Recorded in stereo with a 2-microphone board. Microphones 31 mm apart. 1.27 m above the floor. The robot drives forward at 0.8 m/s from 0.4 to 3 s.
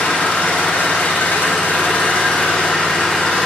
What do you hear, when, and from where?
0.0 s an engine running: 65° left (ahead or behind), 1.5 m; by 3.5 s 45° left (ahead or behind), 2 m